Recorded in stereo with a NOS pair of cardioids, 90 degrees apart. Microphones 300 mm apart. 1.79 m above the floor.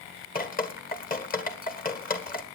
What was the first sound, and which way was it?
Dripping, 30° left.